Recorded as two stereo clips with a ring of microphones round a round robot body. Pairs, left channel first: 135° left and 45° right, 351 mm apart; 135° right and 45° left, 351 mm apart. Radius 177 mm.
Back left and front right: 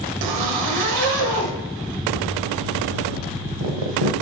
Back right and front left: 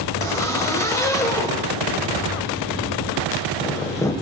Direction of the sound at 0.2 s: 55° right.